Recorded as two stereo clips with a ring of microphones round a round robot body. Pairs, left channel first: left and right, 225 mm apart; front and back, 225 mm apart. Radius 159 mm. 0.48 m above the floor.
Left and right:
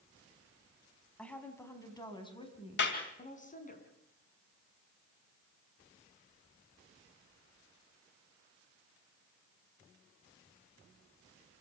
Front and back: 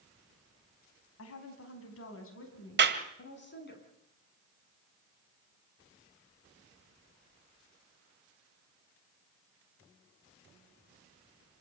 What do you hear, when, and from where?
1.2 s a woman speaking: 5° left, 5 m; by 3.8 s 40° left, 6 m
2.8 s a clap: 145° left, 2 m